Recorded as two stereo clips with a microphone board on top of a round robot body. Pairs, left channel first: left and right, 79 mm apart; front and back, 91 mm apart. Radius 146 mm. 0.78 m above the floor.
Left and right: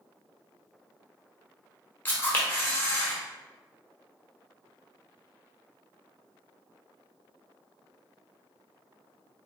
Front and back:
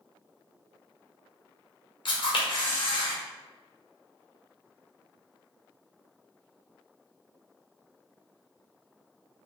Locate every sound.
2.0 s a camera shutter: 20° left, 1.3 m